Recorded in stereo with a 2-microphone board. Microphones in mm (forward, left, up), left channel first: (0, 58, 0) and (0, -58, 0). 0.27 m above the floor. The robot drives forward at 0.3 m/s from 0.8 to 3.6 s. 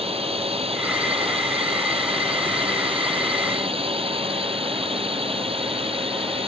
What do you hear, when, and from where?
0.0 s a drone: 55° right (ahead or behind)